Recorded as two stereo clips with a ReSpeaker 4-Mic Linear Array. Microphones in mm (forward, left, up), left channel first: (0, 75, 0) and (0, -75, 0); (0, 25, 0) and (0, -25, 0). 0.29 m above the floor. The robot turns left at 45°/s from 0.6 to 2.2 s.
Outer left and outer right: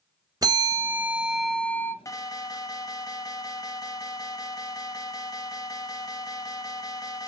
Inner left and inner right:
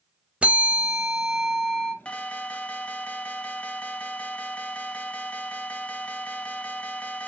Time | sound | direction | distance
0.4 | a bell | 145° right | 0.8 m
2.0 | an alarm | 20° left (ahead or behind) | 0.8 m